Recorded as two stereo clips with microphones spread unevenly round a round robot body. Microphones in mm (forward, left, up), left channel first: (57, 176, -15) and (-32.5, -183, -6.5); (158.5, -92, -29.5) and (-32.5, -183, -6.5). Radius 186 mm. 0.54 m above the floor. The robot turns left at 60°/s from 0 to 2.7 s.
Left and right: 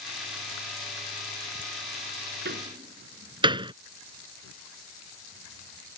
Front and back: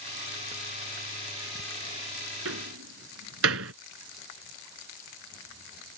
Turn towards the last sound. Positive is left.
turn(degrees=180)